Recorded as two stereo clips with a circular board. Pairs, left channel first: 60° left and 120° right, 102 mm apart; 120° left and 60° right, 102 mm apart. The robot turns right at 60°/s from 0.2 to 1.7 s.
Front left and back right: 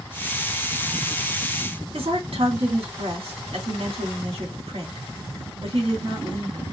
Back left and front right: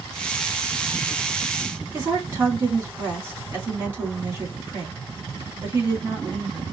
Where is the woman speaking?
130° right, 3 m.